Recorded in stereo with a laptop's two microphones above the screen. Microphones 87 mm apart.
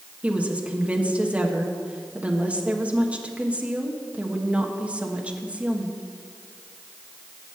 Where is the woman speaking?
15° right (ahead or behind), 1.3 m.